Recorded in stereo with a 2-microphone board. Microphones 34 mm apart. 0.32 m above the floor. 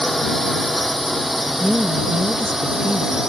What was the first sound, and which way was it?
A drone, 5° left (ahead or behind).